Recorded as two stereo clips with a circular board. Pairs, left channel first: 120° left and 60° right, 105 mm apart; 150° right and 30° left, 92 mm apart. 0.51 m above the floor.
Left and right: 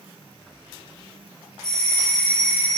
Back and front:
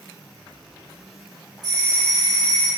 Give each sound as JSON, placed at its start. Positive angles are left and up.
{"t": 1.6, "sound": "a doorbell", "azimuth_deg": 35, "distance_m": 2.5}